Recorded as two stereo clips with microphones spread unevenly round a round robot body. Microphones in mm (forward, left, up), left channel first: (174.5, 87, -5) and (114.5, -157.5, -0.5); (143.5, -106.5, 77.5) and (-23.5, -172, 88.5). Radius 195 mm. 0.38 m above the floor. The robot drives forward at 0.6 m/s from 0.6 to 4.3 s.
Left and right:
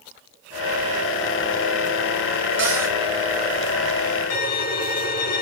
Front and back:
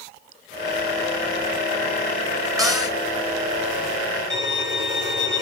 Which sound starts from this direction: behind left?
A violin, at 4.3 s.